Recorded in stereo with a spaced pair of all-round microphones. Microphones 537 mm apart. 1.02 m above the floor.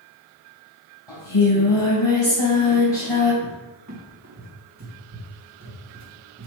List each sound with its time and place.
1.1 s singing: 55° left (ahead or behind), 3.5 m
3.4 s a cupboard door: 30° right (ahead or behind), 1.7 m